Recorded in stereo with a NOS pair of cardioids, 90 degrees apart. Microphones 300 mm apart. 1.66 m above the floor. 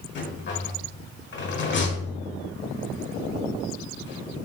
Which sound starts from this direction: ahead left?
A rattle, at 0.1 s.